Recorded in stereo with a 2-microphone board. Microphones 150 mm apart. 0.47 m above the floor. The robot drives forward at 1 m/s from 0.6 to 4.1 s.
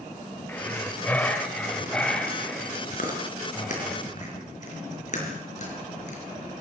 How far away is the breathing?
About 1.6 m.